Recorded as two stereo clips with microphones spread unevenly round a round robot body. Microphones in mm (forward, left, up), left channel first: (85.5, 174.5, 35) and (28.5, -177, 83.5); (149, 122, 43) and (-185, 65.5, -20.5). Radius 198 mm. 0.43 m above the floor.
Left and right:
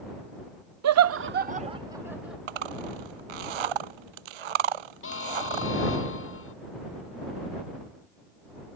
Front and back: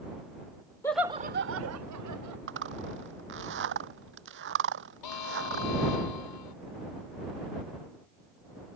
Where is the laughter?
80° right; by 2.4 s 170° left.